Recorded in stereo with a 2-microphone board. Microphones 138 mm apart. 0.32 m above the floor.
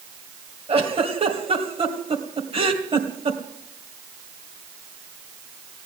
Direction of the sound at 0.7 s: 45° right (ahead or behind).